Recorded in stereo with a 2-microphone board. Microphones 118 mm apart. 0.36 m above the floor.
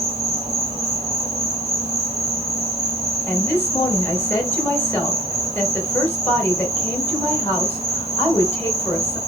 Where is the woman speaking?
20° left (ahead or behind), 1.1 m.